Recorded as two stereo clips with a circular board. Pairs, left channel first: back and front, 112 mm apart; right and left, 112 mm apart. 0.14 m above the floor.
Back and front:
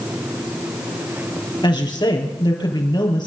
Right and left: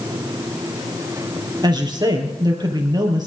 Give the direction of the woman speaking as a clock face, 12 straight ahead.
7 o'clock.